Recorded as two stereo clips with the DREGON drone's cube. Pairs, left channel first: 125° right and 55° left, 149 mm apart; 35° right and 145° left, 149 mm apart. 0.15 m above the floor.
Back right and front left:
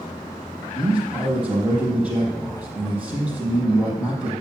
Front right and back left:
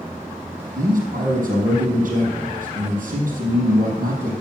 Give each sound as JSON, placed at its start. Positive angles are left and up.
{"t": 0.8, "sound": "a man speaking", "azimuth_deg": 140, "distance_m": 4.0}